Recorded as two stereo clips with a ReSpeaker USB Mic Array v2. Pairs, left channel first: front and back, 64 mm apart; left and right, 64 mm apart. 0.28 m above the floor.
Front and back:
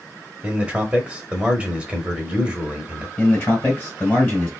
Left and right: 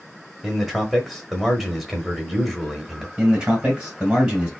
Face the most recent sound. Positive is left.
turn(degrees=-25)